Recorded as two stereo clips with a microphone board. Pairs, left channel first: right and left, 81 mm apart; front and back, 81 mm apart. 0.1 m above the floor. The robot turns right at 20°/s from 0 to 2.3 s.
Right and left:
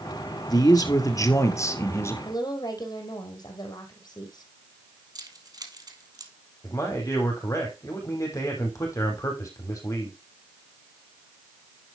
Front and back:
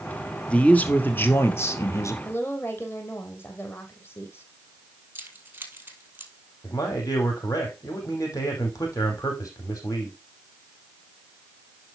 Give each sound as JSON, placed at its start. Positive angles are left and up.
{"t": 0.5, "sound": "a man speaking", "azimuth_deg": -70, "distance_m": 2.0}
{"t": 2.2, "sound": "a woman speaking", "azimuth_deg": -60, "distance_m": 3.0}
{"t": 5.2, "sound": "keys jangling", "azimuth_deg": 120, "distance_m": 2.5}
{"t": 6.6, "sound": "a man speaking", "azimuth_deg": -40, "distance_m": 5.0}